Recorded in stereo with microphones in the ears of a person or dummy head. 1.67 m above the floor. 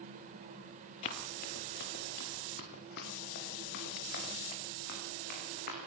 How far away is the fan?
About 1.8 m.